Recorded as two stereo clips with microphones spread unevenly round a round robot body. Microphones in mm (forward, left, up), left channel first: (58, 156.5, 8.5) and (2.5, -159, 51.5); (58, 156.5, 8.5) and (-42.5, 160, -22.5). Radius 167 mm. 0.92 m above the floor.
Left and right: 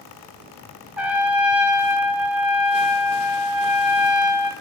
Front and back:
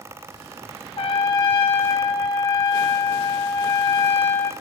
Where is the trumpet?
5° right, 0.9 m.